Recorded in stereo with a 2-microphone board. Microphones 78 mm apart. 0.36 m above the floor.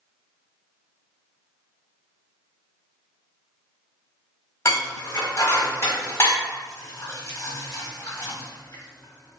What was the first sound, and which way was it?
Dishes clattering, 40° left (ahead or behind).